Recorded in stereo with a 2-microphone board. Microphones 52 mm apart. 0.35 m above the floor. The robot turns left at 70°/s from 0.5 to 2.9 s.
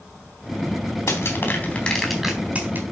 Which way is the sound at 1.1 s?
60° left (ahead or behind).